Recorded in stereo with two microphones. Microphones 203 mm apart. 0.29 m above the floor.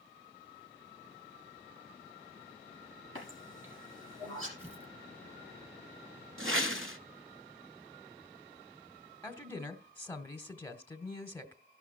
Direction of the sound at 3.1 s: 85° right.